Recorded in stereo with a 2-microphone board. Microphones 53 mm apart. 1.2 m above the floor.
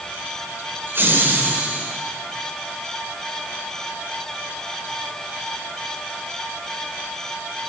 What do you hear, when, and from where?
0.9 s laughter: 45° right (ahead or behind), 4 m; by 1.9 s 25° right (ahead or behind), 3.5 m